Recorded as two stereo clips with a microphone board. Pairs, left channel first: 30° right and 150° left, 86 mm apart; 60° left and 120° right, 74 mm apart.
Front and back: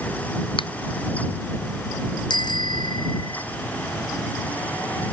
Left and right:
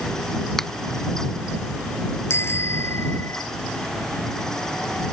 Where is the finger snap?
25° right.